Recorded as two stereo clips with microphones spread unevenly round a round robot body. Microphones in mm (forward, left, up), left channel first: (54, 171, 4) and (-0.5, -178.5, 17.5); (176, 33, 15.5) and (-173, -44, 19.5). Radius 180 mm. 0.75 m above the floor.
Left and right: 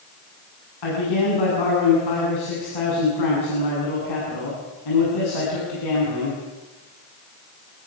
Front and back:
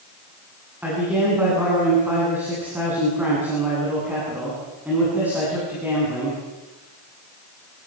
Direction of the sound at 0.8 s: 105° left.